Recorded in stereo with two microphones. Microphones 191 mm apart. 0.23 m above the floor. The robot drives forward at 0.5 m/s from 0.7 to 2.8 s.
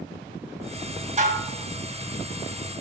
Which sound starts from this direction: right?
Dishes clattering, at 1.2 s.